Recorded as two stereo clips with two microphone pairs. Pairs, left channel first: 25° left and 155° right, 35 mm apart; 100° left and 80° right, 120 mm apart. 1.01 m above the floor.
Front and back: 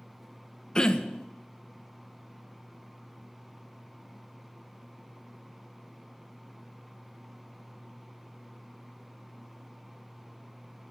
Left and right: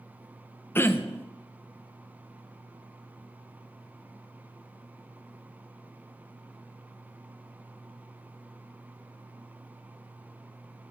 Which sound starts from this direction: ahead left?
Throat clearing, at 0.8 s.